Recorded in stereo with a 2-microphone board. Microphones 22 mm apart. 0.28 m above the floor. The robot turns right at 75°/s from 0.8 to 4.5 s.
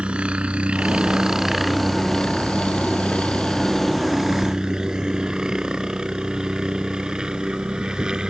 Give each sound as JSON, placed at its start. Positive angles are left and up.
{"t": 0.0, "sound": "a helicopter", "side_deg": -65}